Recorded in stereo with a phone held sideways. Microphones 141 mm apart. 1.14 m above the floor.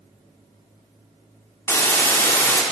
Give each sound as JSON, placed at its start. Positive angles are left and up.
{"t": 1.7, "sound": "a hiss", "side_deg": 20, "distance_m": 0.7}